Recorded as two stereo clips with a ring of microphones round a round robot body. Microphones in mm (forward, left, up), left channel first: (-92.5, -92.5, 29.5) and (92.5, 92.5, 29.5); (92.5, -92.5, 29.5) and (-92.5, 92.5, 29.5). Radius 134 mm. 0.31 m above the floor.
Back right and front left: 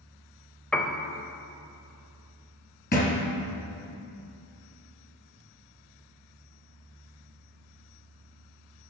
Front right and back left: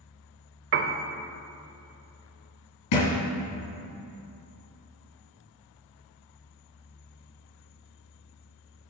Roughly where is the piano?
Behind left.